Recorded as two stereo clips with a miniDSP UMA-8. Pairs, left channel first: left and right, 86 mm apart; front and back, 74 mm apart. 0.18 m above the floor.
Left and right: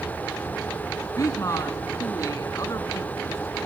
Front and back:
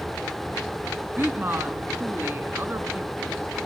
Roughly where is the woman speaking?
Behind left.